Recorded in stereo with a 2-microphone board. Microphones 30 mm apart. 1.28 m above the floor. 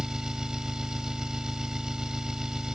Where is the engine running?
20° right (ahead or behind).